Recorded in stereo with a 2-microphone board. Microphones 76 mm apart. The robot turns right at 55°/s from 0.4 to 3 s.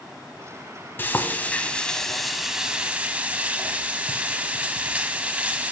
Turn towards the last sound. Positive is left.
turn(degrees=-20)  # may be behind; listen again after turning